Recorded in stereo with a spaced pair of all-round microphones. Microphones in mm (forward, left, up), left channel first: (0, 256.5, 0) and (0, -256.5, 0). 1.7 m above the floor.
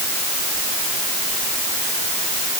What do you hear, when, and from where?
Only background noise.